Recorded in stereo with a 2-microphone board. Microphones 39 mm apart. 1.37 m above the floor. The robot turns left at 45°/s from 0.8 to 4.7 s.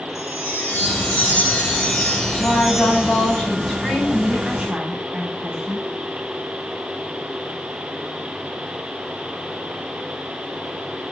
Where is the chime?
85° left, 3.5 m; by 3.4 s 30° right, 3.5 m.